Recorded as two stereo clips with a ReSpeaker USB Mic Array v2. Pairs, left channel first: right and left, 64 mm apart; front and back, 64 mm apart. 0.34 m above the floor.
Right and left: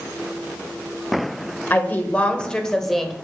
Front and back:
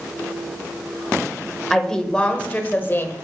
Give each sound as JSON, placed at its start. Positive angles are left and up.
{"t": 1.7, "sound": "a woman speaking", "azimuth_deg": -80, "distance_m": 0.9}